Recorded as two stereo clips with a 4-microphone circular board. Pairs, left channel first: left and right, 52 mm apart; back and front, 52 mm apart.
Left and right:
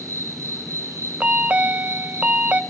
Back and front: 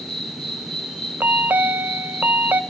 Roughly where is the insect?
Right.